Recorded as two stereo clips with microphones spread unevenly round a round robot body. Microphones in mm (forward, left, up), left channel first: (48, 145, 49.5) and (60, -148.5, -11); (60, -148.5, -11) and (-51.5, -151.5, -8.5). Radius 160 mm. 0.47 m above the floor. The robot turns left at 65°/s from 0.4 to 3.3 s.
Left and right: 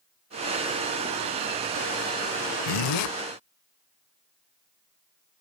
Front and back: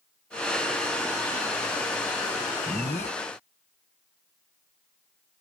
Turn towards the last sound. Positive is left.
turn(degrees=50)